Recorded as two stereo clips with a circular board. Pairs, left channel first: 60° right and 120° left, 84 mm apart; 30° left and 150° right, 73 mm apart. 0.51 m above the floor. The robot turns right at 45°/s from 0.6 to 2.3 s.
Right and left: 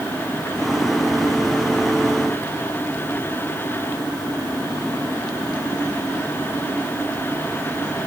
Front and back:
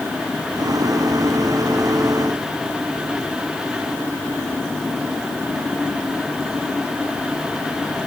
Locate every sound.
Only background noise.